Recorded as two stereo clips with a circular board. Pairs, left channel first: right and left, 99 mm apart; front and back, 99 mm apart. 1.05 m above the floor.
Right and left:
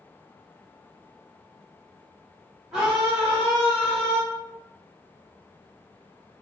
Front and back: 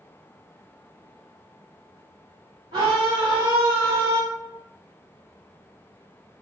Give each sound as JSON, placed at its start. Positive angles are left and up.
{"t": 2.7, "sound": "a scream", "azimuth_deg": 180, "distance_m": 0.9}